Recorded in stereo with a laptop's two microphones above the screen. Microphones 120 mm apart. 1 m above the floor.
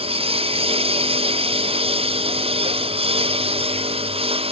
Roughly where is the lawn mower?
Right.